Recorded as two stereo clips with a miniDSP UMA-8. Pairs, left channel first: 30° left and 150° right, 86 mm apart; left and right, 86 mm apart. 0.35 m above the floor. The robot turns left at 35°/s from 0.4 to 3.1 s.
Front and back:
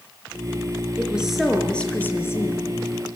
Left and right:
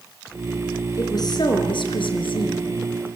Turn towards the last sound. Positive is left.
turn(degrees=60)